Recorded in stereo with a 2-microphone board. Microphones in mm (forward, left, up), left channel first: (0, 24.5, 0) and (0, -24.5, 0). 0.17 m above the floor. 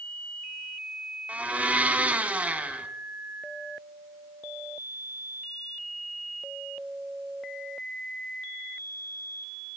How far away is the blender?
About 0.9 m.